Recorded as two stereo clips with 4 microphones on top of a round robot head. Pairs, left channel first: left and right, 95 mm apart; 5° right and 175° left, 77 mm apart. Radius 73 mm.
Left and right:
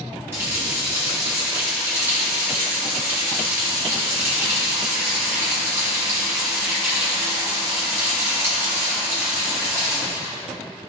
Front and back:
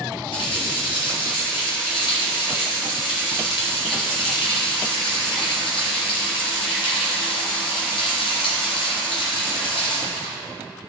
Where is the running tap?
20° right, 1.8 m.